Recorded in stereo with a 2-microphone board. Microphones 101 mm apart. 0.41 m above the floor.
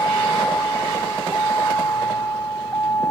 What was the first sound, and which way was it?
A vehicle, 30° left (ahead or behind).